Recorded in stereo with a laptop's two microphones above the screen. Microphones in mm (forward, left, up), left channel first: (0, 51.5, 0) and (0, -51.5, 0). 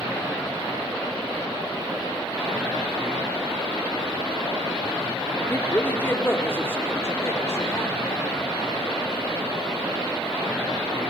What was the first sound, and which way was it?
A woman speaking, 15° left (ahead or behind).